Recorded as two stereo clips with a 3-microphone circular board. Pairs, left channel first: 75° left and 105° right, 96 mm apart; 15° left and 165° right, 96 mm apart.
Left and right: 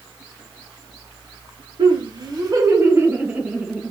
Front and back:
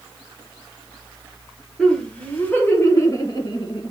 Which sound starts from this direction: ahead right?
Laughter, at 1.8 s.